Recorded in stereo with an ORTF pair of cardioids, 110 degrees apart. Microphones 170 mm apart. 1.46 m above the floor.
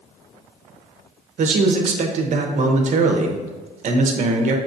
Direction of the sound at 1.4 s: 45° right.